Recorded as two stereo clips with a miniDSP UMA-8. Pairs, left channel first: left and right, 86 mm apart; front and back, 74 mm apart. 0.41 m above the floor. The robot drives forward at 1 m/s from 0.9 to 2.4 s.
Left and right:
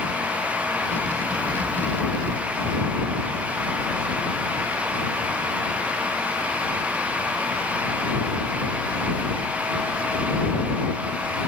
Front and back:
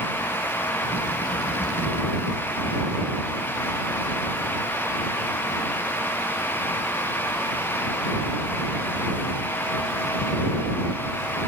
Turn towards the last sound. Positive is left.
No sound to turn to.